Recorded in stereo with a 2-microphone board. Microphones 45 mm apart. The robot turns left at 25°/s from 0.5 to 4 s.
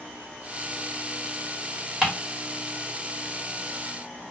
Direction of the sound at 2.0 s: 5° right (ahead or behind).